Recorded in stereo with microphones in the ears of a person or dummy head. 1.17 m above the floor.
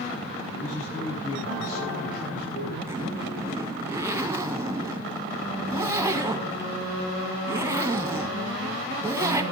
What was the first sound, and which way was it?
A man speaking, 45° left (ahead or behind).